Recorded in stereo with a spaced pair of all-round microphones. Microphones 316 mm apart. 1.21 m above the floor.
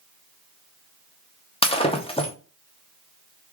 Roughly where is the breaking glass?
Centre.